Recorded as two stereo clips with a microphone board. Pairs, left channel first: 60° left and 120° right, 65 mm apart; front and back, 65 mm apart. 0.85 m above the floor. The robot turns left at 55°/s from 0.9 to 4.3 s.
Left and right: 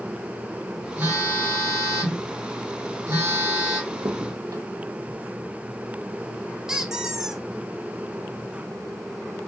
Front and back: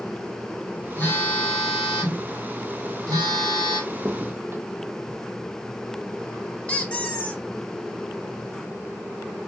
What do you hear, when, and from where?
1.0 s a phone buzzing: 55° right, 1.6 m; by 3.8 s 150° left, 1.6 m
3.9 s a crack: 105° right, 0.7 m; by 5.2 s 130° right, 0.7 m
6.7 s a squeak: 50° right, 0.8 m